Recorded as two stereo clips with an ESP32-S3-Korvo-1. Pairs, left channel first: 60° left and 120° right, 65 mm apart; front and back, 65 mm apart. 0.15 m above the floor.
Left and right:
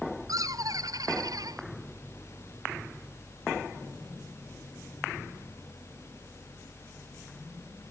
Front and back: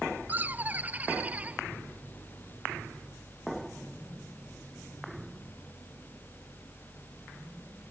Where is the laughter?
120° right; by 1.6 s 110° right.